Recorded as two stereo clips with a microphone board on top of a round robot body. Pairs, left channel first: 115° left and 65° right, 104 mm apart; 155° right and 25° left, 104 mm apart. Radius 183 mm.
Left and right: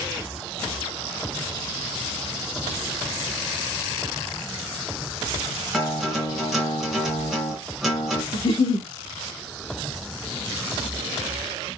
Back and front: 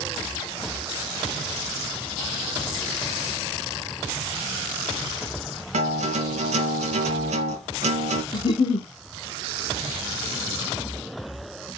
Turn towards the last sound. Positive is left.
turn(degrees=155)